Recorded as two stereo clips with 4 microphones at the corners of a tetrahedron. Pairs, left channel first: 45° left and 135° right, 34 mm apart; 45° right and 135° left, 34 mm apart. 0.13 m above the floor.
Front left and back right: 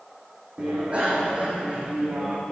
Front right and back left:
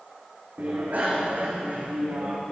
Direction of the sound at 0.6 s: 170° left.